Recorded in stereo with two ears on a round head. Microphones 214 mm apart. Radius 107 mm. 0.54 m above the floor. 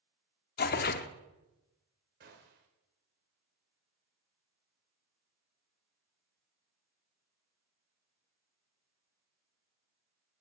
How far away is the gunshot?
About 2.5 m.